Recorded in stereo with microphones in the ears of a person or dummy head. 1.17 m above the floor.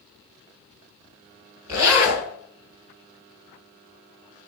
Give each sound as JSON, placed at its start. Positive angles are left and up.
{"t": 1.7, "sound": "a zipper", "side_deg": -15, "distance_m": 2.5}